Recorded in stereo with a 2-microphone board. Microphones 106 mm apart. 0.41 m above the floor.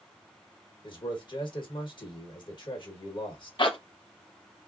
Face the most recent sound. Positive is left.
turn(degrees=50)  # may be behind; listen again after turning